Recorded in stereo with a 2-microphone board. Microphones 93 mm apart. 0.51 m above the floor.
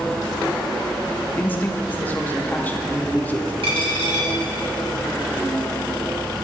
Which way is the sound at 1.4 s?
20° left (ahead or behind).